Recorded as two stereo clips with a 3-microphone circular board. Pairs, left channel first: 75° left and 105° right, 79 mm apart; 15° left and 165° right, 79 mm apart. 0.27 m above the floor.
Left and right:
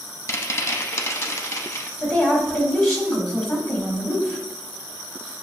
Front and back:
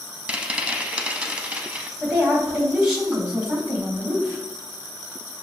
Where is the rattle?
120° left, 0.5 m.